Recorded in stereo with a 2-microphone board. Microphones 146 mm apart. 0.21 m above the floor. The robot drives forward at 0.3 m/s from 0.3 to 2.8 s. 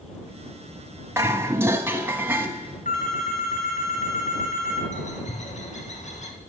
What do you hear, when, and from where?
1.2 s dishes clattering: 20° right (ahead or behind), 0.8 m; by 2.5 s 15° right (ahead or behind), 1.0 m
2.9 s a phone ringing: 60° left (ahead or behind), 2 m
4.9 s a bird: 55° left (ahead or behind), 1.5 m